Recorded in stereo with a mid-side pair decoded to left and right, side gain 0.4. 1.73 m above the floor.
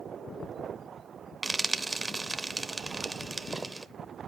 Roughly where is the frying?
Ahead.